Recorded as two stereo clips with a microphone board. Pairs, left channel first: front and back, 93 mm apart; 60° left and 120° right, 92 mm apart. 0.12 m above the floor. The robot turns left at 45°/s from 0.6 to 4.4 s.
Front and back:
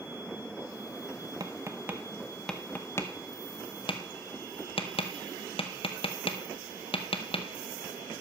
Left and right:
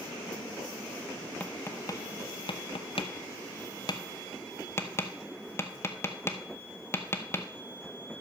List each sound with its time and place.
1.4 s tapping: 135° left, 0.9 m; by 7.5 s straight ahead, 0.9 m